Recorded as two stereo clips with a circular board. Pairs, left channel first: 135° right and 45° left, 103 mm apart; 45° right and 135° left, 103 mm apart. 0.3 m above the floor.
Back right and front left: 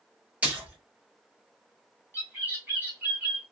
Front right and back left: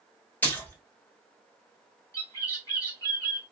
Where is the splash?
10° right, 1.0 m.